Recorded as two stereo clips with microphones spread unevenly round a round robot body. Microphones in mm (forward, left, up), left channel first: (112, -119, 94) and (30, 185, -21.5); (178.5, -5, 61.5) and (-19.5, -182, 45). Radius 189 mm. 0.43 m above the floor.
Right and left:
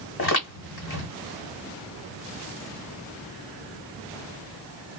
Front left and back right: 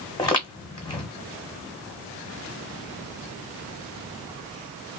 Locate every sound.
0.2 s footsteps: 35° right, 1.8 m